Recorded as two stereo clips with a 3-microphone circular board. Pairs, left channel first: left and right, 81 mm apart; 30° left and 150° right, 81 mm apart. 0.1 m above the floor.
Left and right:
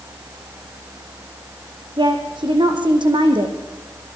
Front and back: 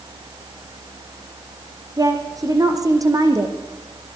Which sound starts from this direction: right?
A woman speaking, at 2.0 s.